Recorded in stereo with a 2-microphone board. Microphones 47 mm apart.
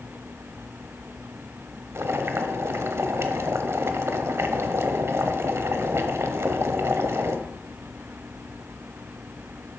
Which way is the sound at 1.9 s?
65° right (ahead or behind).